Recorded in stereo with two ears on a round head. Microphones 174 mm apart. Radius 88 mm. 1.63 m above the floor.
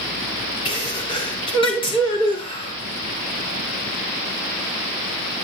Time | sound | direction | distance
0.7 | a sneeze | 25° left (ahead or behind) | 5 m